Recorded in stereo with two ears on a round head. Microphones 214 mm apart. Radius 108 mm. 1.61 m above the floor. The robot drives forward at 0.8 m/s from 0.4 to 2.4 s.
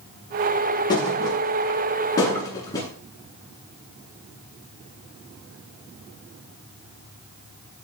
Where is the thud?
20° left (ahead or behind), 8.5 m; by 2.9 s 15° left (ahead or behind), 9.5 m.